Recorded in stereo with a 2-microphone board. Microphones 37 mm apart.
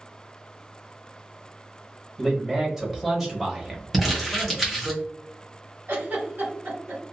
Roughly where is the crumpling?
Centre.